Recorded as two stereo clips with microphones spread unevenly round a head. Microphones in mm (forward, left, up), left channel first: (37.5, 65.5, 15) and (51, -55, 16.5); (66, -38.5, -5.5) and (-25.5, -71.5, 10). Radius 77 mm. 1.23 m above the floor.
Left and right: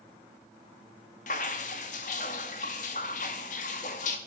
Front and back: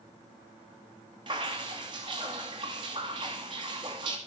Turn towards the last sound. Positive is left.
turn(degrees=135)